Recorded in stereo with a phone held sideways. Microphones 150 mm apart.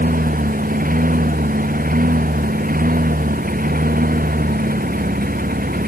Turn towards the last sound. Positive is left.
turn(degrees=-75)  # may be behind; listen again after turning